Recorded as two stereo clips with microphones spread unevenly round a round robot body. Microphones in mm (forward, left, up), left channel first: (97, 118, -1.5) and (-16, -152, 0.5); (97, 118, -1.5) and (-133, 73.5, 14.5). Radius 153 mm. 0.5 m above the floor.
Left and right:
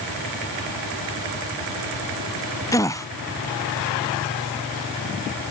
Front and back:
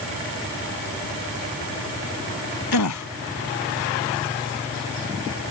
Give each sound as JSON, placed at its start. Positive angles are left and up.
{"t": 2.7, "sound": "a gasp", "azimuth_deg": -10}